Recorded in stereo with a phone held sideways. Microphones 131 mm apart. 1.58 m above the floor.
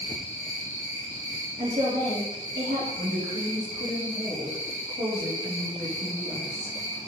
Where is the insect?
75° right (ahead or behind), 3.5 m.